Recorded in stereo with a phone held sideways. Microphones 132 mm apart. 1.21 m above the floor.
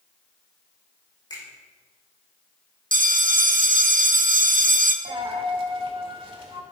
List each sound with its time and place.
1.3 s a finger snap: 30° left (ahead or behind), 5 m
2.9 s a bell: 80° right, 0.8 m
5.0 s a dropped coin: 40° right (ahead or behind), 1.6 m